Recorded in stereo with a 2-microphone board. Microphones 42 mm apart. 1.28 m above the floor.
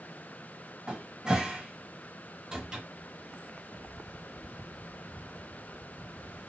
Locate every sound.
0.9 s a cupboard door: 20° right (ahead or behind), 0.7 m